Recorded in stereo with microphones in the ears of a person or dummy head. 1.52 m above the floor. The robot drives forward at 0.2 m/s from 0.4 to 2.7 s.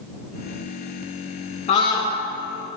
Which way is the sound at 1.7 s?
40° left (ahead or behind).